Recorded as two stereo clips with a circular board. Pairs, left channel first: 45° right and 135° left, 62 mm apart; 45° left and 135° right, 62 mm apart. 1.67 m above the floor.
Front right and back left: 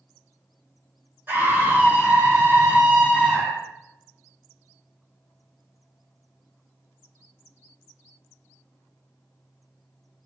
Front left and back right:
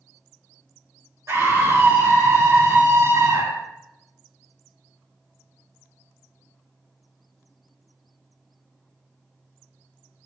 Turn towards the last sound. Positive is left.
turn(degrees=-155)